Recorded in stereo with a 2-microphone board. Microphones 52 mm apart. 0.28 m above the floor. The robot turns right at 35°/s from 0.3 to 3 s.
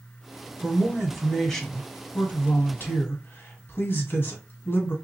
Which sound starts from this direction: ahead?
A man speaking, at 0.6 s.